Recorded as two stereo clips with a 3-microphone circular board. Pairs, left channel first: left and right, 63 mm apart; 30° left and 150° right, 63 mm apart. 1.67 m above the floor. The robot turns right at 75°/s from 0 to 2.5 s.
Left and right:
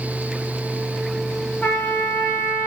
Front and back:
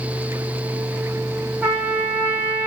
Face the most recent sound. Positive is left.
turn(degrees=-130)